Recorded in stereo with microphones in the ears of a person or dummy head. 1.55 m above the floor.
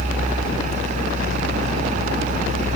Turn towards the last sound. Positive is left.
No sound to turn to.